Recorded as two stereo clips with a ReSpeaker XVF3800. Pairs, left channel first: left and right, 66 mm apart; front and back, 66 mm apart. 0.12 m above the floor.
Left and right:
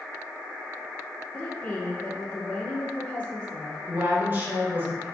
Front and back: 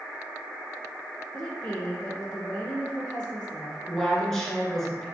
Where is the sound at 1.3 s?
55° left, 1.2 m.